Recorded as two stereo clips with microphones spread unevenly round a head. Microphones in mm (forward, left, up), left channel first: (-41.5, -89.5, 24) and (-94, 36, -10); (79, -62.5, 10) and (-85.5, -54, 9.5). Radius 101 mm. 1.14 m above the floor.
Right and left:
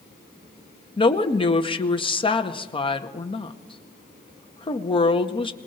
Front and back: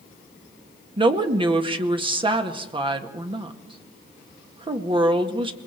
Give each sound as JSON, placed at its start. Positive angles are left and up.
{"t": 1.0, "sound": "a woman speaking", "azimuth_deg": -125, "distance_m": 1.9}